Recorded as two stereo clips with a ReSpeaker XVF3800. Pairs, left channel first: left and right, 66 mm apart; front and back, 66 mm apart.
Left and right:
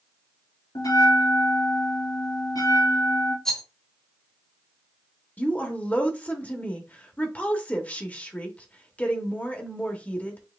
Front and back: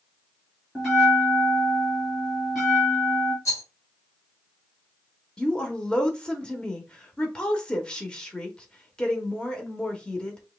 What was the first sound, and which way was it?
A bell, 85° left.